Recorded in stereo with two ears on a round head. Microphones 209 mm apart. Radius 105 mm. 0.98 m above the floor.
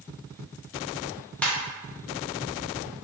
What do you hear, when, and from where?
1.4 s a ringtone: 5° left (ahead or behind), 0.7 m